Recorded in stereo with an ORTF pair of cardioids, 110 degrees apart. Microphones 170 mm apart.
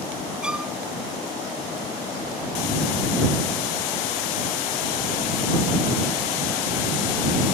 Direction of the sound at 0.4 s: 5° right.